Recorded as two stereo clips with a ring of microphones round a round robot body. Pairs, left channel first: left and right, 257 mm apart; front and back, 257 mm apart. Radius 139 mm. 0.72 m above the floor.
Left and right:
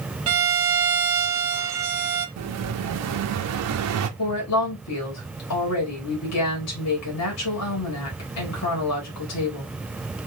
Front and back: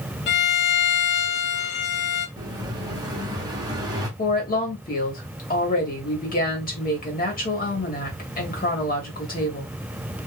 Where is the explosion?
105° right, 0.8 m.